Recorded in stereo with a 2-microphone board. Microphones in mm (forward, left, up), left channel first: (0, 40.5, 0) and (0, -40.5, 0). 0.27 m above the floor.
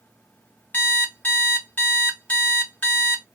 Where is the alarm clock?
20° left (ahead or behind), 1.1 m.